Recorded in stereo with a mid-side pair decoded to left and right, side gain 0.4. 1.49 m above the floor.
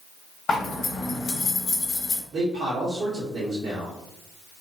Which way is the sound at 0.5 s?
65° left.